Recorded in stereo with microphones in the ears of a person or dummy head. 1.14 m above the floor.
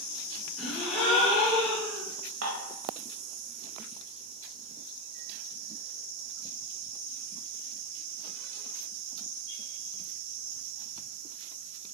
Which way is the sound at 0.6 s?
Centre (ahead or behind).